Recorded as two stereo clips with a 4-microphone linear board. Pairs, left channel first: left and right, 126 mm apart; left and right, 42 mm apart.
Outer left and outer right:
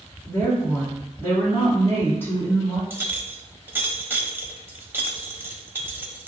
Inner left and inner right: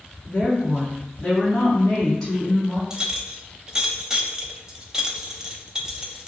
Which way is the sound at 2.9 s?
15° right (ahead or behind).